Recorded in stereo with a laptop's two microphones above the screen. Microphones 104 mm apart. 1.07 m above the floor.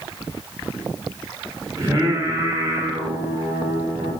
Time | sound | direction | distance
1.8 | singing | 30° right (ahead or behind) | 2.5 m